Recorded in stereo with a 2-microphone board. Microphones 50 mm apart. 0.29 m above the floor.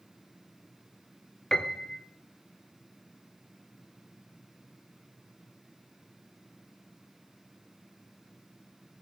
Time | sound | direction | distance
1.5 | a piano | 10° left (ahead or behind) | 1.1 m